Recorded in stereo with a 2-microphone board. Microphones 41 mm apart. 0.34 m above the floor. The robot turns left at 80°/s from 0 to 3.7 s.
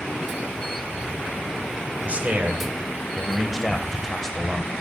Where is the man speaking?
55° right, 1.3 m; by 4.7 s 170° left, 1.3 m.